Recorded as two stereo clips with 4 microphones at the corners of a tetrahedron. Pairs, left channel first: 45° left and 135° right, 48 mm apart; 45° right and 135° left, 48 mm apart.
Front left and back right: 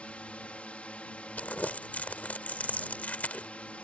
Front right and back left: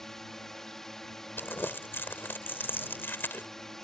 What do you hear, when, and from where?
0.0 s a drone: 25° left
1.4 s crumpling: 10° right